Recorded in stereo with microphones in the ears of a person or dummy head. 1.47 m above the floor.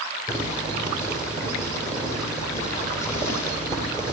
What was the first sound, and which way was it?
Boiling, 10° left (ahead or behind).